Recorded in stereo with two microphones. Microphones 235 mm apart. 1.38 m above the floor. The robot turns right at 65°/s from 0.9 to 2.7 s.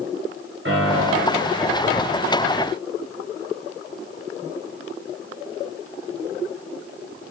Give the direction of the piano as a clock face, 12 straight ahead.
4 o'clock.